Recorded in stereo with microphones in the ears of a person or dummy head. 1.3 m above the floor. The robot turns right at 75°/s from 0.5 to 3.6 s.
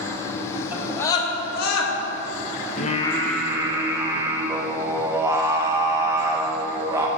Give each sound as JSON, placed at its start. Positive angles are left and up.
{"t": 0.7, "sound": "a scream", "side_deg": -10, "distance_m": 1.6}
{"t": 2.8, "sound": "singing", "azimuth_deg": 135, "distance_m": 0.6}